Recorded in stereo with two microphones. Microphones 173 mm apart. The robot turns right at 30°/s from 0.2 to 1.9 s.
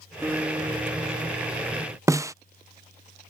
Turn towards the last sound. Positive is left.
turn(degrees=-15)  # may be behind; listen again after turning